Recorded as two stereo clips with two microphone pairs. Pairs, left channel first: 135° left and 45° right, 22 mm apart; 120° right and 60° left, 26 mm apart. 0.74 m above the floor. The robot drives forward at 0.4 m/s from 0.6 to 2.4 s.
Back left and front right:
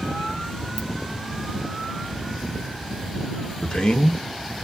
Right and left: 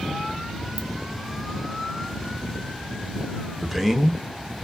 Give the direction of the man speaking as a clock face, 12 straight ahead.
7 o'clock.